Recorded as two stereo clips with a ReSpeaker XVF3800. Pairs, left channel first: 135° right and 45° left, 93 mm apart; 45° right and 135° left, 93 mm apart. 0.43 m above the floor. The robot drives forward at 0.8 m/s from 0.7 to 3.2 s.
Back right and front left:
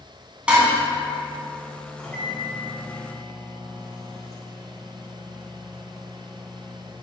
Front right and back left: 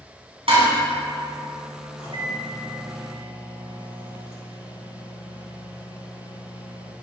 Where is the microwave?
60° right, 3 m; by 6.9 s 80° right, 2.5 m.